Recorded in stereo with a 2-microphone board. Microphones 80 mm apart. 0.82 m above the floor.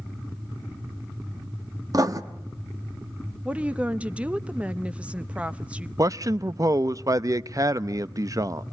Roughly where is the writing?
Right.